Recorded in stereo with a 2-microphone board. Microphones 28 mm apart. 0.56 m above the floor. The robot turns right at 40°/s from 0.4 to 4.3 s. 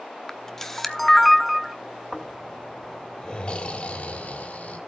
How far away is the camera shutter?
About 0.9 m.